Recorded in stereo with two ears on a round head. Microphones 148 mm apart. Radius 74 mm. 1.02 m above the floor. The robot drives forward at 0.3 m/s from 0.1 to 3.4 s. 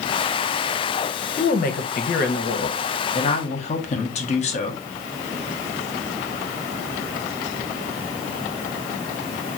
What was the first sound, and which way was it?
A woman speaking, 50° left (ahead or behind).